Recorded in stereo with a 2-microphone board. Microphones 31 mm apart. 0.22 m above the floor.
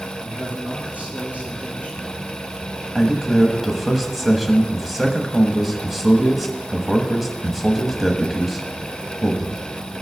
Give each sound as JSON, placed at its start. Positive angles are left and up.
{"t": 0.2, "sound": "a man speaking", "side_deg": -55, "distance_m": 4.5}
{"t": 3.0, "sound": "a man speaking", "side_deg": -5, "distance_m": 1.0}